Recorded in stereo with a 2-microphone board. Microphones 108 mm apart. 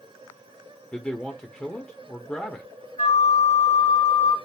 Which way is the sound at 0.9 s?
10° left (ahead or behind).